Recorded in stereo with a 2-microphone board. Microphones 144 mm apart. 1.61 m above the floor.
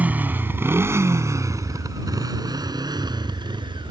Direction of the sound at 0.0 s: 10° right (ahead or behind).